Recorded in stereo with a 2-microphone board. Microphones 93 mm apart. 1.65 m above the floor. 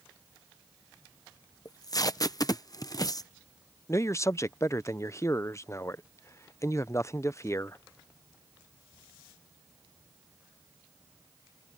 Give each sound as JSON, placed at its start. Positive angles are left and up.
{"t": 1.6, "sound": "tape being pulled", "side_deg": 40}
{"t": 3.9, "sound": "a man speaking", "side_deg": 30}